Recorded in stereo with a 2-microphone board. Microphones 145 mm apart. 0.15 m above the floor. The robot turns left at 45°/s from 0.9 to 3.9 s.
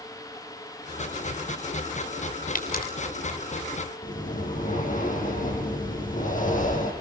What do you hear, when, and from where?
2.5 s a pop: 70° left (ahead or behind), 4 m; by 2.8 s 80° left, 4 m
4.0 s breathing: 65° left (ahead or behind), 7 m